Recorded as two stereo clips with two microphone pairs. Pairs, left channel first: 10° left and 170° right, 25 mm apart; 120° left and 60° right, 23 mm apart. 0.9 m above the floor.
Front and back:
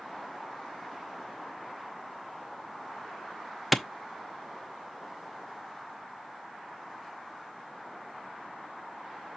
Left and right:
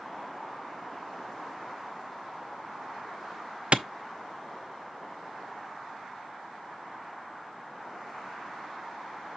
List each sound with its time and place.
3.7 s a clap: 85° right, 0.8 m